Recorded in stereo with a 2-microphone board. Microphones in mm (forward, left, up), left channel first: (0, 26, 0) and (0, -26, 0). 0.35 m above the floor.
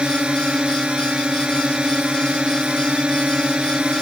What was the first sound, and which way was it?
A drone, 20° right (ahead or behind).